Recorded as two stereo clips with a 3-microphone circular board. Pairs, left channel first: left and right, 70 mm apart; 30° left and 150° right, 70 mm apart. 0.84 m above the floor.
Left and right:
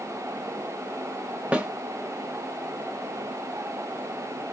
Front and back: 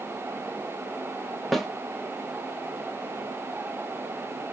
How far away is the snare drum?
About 0.6 m.